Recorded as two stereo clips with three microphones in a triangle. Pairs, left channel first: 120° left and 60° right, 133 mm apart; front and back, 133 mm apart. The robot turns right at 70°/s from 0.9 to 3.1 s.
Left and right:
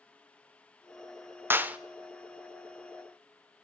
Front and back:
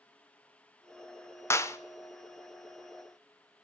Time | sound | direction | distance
1.5 | a clap | 20° right | 0.6 m